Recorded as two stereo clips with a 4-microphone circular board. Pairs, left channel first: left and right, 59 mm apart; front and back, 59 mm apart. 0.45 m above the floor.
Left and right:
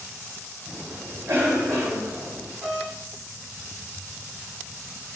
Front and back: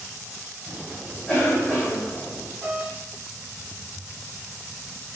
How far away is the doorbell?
About 1.6 m.